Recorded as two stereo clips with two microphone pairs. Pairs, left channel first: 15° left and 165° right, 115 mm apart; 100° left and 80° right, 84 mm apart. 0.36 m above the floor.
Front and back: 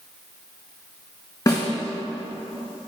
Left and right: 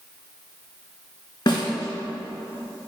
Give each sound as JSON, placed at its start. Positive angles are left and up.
{"t": 1.5, "sound": "a snare drum", "azimuth_deg": 70, "distance_m": 1.7}